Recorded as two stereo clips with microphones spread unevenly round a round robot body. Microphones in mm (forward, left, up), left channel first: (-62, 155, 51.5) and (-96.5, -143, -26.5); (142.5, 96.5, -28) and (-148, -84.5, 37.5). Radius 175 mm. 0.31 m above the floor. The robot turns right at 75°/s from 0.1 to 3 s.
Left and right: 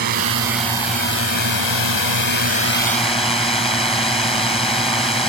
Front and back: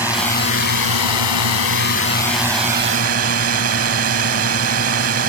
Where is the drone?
55° right; by 5.3 s 160° left.